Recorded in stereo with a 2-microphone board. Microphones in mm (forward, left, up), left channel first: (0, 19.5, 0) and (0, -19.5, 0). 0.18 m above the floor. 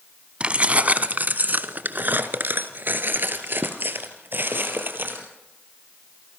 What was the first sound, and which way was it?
Keys jangling, 30° right (ahead or behind).